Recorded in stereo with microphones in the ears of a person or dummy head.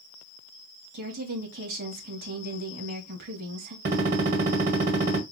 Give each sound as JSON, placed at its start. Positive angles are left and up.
{"t": 0.9, "sound": "a woman speaking", "side_deg": -55, "distance_m": 1.8}
{"t": 3.9, "sound": "a gunshot", "side_deg": -50, "distance_m": 1.9}